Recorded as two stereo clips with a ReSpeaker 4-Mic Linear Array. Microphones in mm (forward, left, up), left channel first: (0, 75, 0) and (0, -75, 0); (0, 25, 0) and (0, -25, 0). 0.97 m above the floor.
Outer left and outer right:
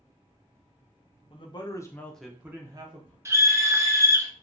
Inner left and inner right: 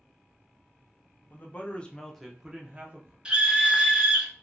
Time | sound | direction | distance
1.3 | a man speaking | 40° left (ahead or behind) | 0.8 m
3.2 | a scream | 20° right (ahead or behind) | 0.8 m